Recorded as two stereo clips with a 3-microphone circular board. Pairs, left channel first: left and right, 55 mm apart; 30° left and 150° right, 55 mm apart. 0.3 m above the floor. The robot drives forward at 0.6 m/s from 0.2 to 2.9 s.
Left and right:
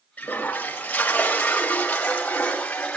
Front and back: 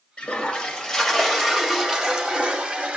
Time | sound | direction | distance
0.2 | a toilet flushing | 75° left | 1.7 m